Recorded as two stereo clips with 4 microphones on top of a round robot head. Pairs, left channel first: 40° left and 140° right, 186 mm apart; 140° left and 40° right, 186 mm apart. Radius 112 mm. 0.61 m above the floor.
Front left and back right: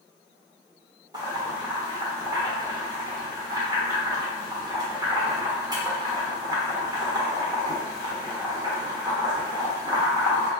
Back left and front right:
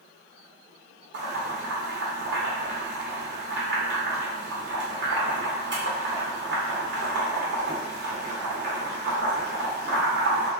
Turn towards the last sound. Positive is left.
turn(degrees=-70)